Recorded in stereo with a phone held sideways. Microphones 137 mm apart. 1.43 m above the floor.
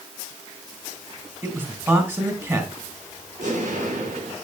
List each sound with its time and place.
1.4 s a man speaking: 20° right (ahead or behind), 2.5 m
3.4 s an explosion: 65° right (ahead or behind), 5.5 m